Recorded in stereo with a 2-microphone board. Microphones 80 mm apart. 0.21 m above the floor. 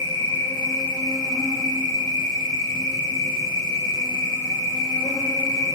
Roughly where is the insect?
Left.